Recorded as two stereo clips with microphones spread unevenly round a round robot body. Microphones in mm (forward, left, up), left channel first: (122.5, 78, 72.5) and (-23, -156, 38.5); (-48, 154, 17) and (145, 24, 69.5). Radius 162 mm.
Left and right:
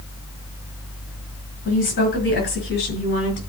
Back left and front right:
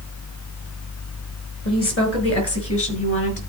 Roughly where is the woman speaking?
Behind left.